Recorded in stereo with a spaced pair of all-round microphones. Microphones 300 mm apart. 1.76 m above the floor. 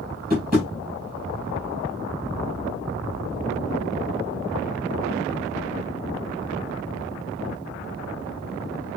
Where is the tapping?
30° right (ahead or behind), 5.5 m.